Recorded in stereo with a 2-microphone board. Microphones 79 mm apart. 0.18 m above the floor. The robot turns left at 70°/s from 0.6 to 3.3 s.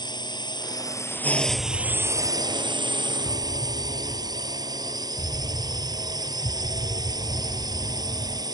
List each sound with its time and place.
0.0 s a drone: 70° left; by 8.5 s 120° right
1.5 s an explosion: 175° left; by 8.4 s 45° left